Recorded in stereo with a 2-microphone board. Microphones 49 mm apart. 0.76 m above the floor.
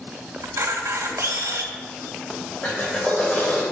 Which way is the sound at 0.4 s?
80° right.